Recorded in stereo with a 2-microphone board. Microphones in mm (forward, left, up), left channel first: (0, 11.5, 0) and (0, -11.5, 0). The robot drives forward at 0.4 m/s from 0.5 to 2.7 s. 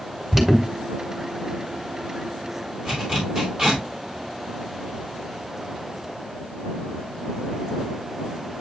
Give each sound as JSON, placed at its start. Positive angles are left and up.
{"t": 0.3, "sound": "an alarm", "side_deg": -15, "distance_m": 2.0}
{"t": 2.9, "sound": "a zipper", "side_deg": -30, "distance_m": 4.0}